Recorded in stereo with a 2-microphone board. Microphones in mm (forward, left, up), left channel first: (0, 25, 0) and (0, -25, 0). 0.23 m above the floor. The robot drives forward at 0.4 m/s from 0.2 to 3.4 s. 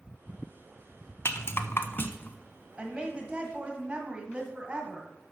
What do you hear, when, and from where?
1.2 s a rattle: 60° left (ahead or behind), 0.6 m; by 2.4 s 40° left (ahead or behind), 0.8 m
2.8 s a woman speaking: 20° right (ahead or behind), 1.4 m